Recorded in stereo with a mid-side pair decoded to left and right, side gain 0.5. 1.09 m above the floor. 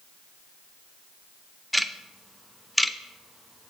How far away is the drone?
I don't hear a drone.